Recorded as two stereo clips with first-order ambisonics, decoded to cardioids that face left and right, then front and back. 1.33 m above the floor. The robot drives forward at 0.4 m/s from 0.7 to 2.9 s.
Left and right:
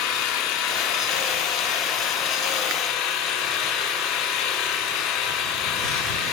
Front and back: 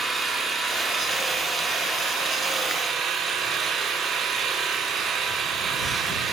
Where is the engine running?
95° left, 3 m; by 6.3 s 110° left, 3.5 m.